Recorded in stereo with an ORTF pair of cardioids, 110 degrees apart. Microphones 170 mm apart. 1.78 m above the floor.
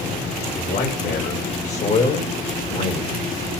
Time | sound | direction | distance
0.6 | a man speaking | 55° left | 5.5 m